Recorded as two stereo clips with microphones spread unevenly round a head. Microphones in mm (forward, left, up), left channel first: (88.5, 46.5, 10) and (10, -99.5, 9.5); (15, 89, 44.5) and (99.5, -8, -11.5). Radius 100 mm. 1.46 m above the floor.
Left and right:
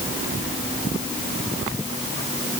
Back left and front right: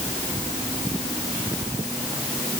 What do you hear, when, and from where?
Only background noise.